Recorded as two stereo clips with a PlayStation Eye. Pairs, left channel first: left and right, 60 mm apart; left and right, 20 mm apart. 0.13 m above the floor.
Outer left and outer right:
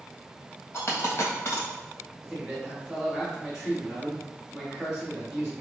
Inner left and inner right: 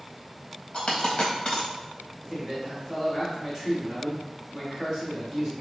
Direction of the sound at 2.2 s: 5° right (ahead or behind).